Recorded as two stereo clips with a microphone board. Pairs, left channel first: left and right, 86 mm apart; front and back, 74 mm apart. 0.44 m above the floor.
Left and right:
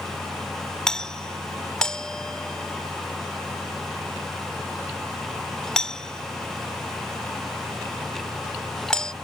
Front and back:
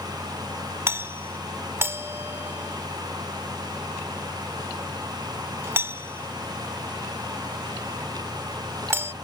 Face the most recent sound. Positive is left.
turn(degrees=165)